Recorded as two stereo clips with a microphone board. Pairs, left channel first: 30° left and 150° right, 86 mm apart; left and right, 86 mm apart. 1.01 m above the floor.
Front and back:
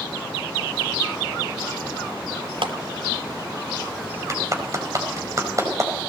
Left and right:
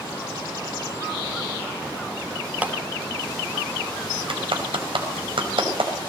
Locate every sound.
2.6 s a clap: 160° right, 2.5 m
4.3 s a clap: 95° right, 5 m